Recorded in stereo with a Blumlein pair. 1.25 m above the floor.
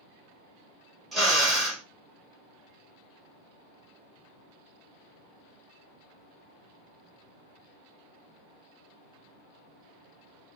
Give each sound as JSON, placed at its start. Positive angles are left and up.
{"t": 1.1, "sound": "a drill", "azimuth_deg": -5, "distance_m": 1.7}